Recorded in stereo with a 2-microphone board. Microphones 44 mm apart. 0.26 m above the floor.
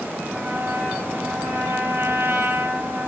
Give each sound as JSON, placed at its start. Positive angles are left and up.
{"t": 0.3, "sound": "a trumpet", "side_deg": -75, "distance_m": 3.5}